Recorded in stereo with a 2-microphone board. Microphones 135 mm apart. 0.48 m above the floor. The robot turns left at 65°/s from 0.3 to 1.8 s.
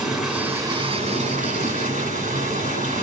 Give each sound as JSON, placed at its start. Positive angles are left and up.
{"t": 0.0, "sound": "running water", "azimuth_deg": -5, "distance_m": 3.5}